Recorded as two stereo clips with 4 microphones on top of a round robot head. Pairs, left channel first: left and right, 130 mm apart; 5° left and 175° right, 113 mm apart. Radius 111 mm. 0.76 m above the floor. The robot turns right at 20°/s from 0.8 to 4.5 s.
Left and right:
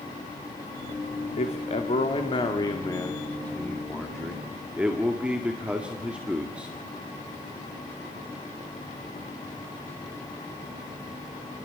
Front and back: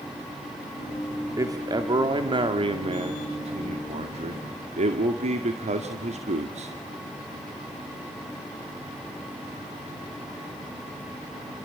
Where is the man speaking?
125° left, 2 m; by 6.7 s 170° right, 2 m.